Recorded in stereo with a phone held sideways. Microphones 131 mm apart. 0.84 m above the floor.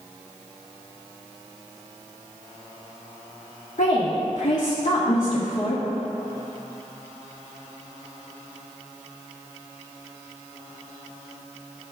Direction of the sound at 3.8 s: 75° left (ahead or behind).